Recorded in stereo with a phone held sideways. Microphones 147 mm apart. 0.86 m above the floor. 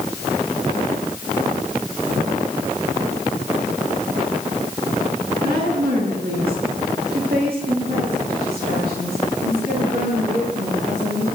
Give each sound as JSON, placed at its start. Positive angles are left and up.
{"t": 5.4, "sound": "a woman speaking", "side_deg": -80, "distance_m": 9.5}